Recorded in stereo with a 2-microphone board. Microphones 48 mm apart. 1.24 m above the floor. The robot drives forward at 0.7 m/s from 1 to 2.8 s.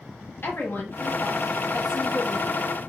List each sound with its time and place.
0.4 s a woman speaking: 45° left (ahead or behind), 1.4 m; by 2.9 s 60° left (ahead or behind), 1.2 m